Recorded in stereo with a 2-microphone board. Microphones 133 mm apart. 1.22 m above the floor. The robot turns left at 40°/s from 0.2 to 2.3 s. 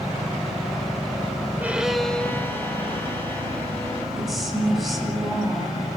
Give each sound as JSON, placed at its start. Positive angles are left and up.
{"t": 1.6, "sound": "a violin", "side_deg": -15, "distance_m": 1.9}
{"t": 4.2, "sound": "a woman speaking", "side_deg": 0, "distance_m": 9.5}